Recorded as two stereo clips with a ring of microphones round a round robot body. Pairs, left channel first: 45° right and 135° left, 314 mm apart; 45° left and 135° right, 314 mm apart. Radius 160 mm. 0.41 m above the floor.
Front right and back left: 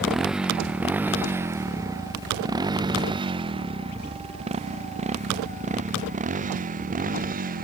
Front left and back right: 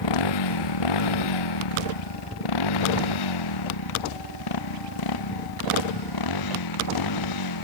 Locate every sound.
0.0 s a motorcycle: 45° left; by 7.7 s 70° left